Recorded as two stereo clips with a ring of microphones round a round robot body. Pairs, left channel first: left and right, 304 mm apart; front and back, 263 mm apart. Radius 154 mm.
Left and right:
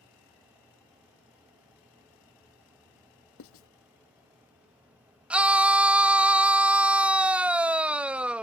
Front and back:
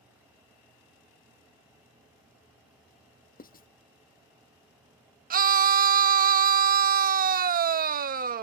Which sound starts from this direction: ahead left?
Writing, at 3.4 s.